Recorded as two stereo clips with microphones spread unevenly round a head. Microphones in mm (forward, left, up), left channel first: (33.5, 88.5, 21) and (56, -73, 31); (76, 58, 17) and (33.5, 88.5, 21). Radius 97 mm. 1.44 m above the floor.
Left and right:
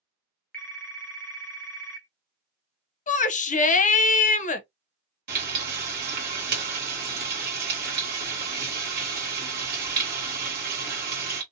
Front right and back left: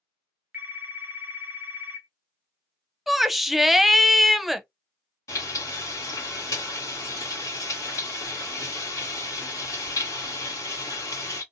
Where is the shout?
60° left, 0.7 m.